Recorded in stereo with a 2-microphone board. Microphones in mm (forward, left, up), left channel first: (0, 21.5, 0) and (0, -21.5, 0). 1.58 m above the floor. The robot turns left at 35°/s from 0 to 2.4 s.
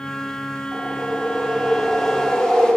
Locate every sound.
0.7 s a whoosh: 135° right, 7.5 m; by 2.8 s 165° left, 7.5 m